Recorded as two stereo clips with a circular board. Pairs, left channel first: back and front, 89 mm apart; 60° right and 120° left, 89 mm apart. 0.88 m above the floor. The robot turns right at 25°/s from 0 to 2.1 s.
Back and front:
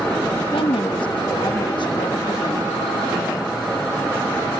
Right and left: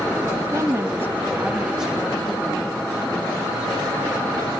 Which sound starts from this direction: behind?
A woman speaking, at 0.5 s.